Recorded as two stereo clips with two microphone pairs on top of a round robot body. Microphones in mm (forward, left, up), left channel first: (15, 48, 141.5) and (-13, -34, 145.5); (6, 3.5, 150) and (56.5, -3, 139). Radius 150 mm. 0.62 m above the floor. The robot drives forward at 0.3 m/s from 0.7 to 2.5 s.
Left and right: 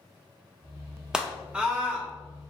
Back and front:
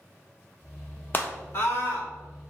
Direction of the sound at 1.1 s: 175° left.